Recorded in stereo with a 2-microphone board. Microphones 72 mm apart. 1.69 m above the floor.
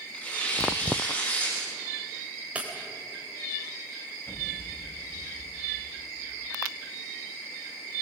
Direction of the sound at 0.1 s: 20° left (ahead or behind).